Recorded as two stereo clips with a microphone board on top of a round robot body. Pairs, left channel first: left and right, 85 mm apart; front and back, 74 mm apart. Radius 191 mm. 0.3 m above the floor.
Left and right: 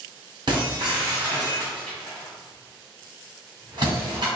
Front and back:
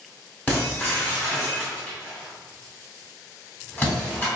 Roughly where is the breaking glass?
Ahead right.